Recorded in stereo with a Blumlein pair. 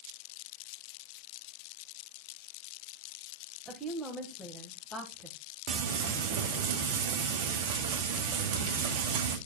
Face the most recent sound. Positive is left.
turn(degrees=-50)